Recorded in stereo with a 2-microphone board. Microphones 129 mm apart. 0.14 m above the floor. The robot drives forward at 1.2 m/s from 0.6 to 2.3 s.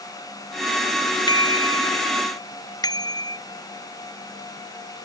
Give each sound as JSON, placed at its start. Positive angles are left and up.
{"t": 1.3, "sound": "a bicycle bell", "side_deg": 35}